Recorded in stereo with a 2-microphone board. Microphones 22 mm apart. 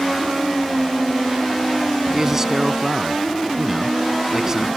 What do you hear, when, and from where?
2.1 s a man speaking: 20° right (ahead or behind)